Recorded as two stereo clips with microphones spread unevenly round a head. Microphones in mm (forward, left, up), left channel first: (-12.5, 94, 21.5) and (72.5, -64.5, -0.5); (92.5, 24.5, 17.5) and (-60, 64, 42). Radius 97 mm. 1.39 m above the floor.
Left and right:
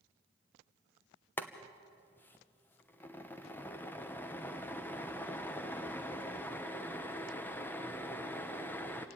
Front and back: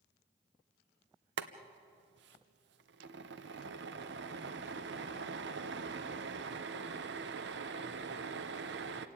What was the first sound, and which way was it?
Boiling, 160° right.